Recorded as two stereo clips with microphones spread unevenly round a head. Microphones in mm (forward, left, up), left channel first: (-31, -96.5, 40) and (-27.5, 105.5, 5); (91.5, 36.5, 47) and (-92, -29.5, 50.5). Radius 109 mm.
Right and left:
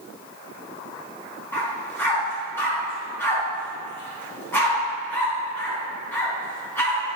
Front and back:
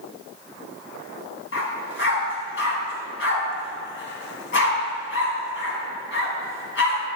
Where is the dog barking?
15° right, 3.5 m.